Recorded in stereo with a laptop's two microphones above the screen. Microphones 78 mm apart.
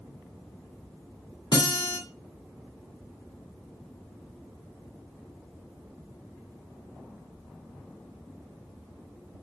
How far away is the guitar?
About 2 m.